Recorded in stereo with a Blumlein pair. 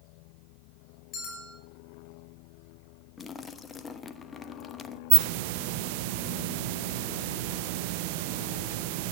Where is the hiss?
45° right, 0.9 m.